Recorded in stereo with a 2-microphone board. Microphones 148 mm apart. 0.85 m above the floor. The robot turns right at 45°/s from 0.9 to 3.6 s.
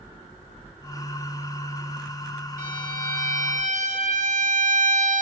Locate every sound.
2.6 s a violin: 110° right, 3.5 m; by 5.2 s 65° right, 3.5 m